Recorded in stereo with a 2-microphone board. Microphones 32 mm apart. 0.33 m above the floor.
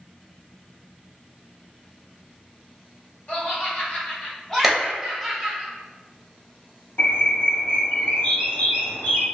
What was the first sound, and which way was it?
Laughter, 40° left (ahead or behind).